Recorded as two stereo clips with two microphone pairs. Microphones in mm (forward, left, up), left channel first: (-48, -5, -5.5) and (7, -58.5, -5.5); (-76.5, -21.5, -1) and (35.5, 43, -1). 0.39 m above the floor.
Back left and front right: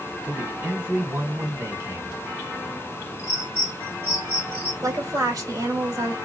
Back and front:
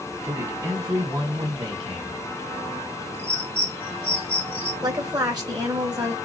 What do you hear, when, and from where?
0.2 s a man speaking: 20° right, 1.5 m; by 2.2 s 10° right, 2 m
3.2 s a bird: 20° left, 2.5 m
4.8 s a woman speaking: 20° right, 2 m